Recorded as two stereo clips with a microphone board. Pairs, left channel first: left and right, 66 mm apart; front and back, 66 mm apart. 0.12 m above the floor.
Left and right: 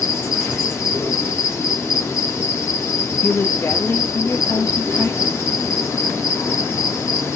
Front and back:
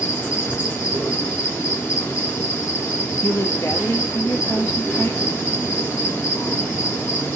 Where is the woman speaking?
40° left, 3 m.